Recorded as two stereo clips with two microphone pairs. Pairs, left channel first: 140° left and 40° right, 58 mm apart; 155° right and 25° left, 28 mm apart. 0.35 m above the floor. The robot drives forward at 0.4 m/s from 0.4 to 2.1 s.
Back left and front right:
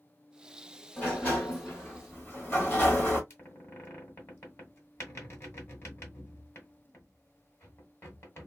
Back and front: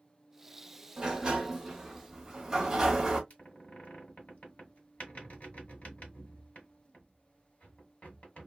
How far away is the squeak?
About 2 m.